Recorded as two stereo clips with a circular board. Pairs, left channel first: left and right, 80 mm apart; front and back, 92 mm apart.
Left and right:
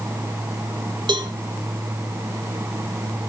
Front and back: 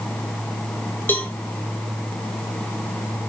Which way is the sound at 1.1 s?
70° right.